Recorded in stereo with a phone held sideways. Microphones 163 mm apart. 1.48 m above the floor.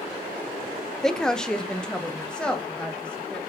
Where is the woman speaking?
5° left (ahead or behind), 0.6 m.